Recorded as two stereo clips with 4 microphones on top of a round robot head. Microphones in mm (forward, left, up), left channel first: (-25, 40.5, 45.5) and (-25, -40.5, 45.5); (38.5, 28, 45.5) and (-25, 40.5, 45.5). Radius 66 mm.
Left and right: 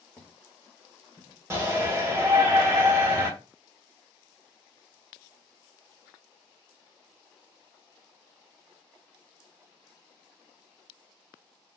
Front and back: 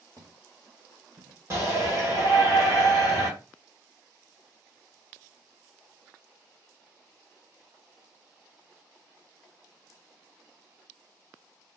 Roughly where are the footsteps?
Behind.